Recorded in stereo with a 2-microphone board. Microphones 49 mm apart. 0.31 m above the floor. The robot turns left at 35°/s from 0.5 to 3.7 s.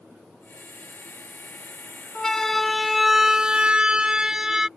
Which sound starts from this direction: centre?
A siren, at 2.1 s.